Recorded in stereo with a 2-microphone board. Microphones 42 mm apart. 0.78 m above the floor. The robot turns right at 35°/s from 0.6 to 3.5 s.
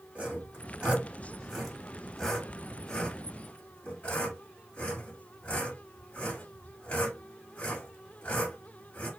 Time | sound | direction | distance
0.1 | sawing | 30° right (ahead or behind) | 1.4 m